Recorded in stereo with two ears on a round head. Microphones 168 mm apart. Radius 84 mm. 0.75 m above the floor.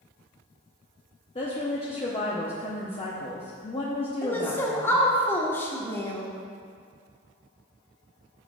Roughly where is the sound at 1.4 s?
Left.